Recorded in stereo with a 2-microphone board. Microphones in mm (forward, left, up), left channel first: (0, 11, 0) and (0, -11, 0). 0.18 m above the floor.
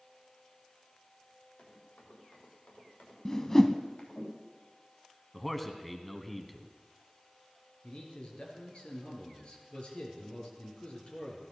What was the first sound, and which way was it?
Running footsteps, 70° left (ahead or behind).